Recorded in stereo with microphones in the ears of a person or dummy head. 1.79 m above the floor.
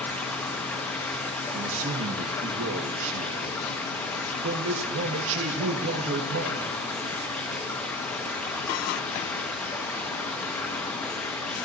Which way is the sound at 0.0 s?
5° left (ahead or behind).